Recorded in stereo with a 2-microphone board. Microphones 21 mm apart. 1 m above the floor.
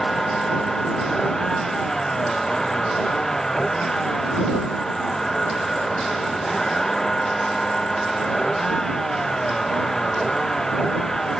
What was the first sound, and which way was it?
A vehicle, 25° left (ahead or behind).